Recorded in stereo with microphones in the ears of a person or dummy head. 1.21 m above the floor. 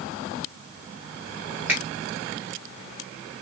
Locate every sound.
1.7 s a finger snap: 10° right (ahead or behind), 1.1 m